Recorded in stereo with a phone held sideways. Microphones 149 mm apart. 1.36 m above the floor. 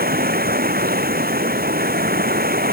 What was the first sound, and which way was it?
Running water, 85° right.